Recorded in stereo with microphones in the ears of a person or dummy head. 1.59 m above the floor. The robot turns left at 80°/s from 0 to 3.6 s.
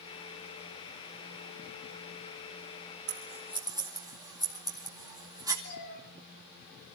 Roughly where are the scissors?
Right.